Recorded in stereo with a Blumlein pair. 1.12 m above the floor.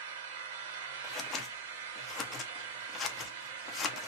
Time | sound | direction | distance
0.0 | an engine running | 55° right | 1.1 m
1.0 | scissors | 25° left | 0.6 m